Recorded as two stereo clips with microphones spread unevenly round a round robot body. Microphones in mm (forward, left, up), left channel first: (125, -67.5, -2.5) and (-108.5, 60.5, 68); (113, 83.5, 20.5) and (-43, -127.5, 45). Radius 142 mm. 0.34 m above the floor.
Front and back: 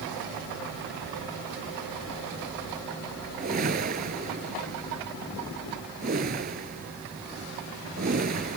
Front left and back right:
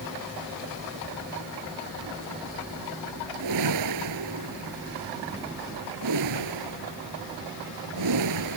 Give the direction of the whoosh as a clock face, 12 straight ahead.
5 o'clock.